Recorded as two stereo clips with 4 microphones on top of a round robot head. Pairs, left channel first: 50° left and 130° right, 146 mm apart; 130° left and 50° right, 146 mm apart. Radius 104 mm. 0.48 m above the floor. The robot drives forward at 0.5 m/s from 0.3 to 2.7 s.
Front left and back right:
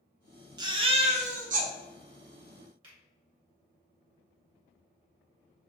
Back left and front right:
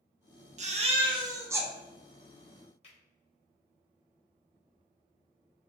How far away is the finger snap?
About 1.9 m.